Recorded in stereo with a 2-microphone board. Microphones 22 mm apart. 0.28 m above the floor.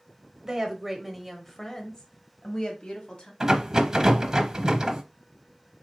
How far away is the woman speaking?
About 0.9 m.